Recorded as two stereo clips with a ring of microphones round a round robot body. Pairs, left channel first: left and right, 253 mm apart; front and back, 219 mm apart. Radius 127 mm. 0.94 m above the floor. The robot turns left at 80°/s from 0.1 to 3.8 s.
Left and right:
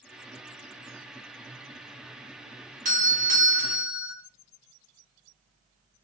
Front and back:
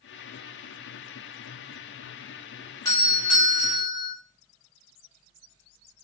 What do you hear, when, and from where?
2.9 s a doorbell: 65° right, 0.9 m; by 4.1 s 140° right, 0.9 m